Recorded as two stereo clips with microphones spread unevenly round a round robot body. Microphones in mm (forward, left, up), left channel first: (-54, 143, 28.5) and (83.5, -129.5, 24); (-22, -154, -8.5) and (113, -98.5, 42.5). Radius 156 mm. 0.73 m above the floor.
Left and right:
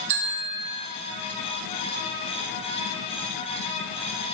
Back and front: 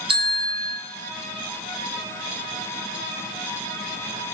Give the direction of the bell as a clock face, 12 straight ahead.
1 o'clock.